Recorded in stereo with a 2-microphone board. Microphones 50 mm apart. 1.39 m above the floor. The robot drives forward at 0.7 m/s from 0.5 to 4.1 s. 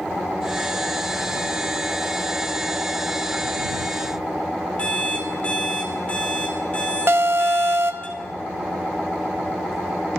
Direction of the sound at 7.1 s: 45° right (ahead or behind).